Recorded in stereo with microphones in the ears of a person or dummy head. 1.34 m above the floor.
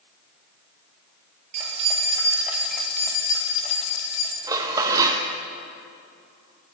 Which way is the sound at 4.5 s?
15° right (ahead or behind).